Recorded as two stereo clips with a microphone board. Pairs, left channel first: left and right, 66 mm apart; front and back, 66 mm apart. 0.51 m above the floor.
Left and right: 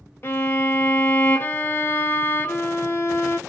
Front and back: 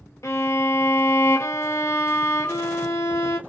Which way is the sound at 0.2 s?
35° left.